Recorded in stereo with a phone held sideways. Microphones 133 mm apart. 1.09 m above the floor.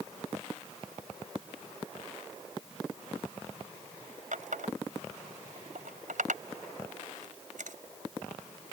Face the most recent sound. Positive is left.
turn(degrees=-80)